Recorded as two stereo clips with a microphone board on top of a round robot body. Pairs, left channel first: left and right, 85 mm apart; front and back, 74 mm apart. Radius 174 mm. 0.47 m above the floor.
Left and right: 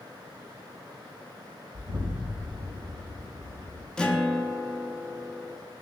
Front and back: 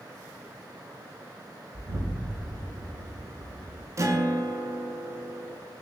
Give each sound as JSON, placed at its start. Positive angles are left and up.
{"t": 1.7, "sound": "an explosion", "azimuth_deg": -145, "distance_m": 1.0}
{"t": 4.0, "sound": "a guitar", "azimuth_deg": 165, "distance_m": 0.7}